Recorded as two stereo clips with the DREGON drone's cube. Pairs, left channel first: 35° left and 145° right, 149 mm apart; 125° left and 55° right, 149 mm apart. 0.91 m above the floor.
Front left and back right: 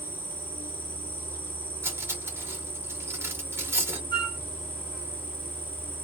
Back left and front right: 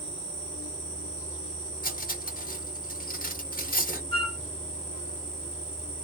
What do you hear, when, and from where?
0.0 s an insect: 40° right, 1.1 m
1.8 s cutlery clinking: 140° left, 1.1 m
4.1 s a flute: 85° left, 1.0 m